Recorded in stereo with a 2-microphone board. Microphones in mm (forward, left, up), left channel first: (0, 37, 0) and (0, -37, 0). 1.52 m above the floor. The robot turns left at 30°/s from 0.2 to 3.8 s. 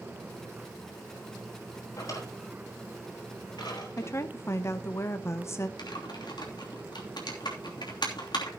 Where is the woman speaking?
40° left (ahead or behind), 0.8 m.